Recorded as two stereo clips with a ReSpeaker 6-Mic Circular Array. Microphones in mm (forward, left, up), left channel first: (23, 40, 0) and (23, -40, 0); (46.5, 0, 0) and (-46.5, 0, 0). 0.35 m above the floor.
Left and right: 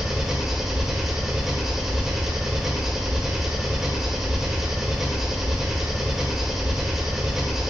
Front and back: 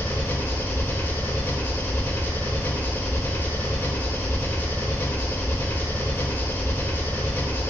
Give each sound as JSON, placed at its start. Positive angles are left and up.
{"t": 0.0, "sound": "an engine running", "azimuth_deg": -10, "distance_m": 1.0}